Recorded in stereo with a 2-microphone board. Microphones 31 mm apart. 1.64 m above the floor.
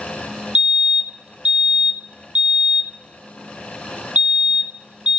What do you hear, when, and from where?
0.6 s a fire alarm: 35° right (ahead or behind), 0.7 m